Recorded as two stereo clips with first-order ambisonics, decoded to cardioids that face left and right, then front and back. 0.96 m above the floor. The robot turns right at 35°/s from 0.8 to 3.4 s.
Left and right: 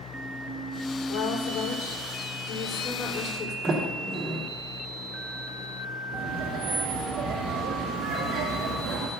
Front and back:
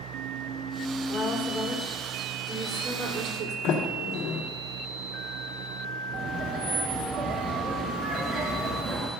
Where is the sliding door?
30° right, 2.5 m.